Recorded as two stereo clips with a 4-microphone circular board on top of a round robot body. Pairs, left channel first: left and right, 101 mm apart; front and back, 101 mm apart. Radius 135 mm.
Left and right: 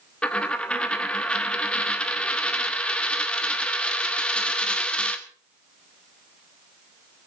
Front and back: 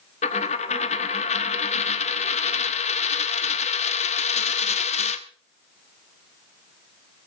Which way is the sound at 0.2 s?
10° left.